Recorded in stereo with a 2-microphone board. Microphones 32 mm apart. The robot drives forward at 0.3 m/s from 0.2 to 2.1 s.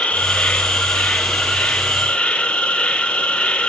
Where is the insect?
50° left (ahead or behind), 1.8 m; by 3.7 s 40° left (ahead or behind), 2 m.